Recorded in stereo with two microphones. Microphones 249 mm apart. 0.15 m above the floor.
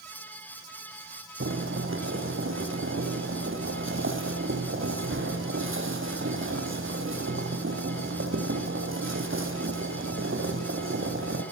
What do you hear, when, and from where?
1.4 s boiling: 55° right (ahead or behind), 6.5 m